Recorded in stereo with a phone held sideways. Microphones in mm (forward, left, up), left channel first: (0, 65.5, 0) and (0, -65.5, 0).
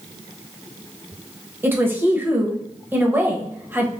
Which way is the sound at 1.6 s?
15° right (ahead or behind).